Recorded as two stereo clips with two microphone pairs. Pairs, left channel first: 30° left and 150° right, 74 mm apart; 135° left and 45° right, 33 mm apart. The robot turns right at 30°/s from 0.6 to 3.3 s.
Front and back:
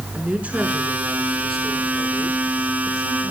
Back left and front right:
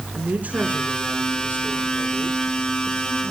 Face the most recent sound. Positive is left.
turn(degrees=0)